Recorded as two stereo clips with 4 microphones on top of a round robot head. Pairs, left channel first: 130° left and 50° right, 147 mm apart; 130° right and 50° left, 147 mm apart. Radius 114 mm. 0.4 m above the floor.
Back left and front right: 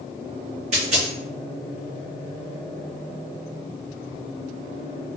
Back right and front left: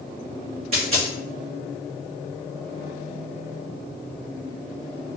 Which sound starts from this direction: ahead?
A dropped coin, at 0.7 s.